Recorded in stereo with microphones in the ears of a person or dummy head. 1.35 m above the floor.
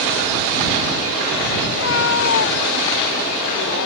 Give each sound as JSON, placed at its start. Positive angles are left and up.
{"t": 1.7, "sound": "a cat meowing", "side_deg": 75}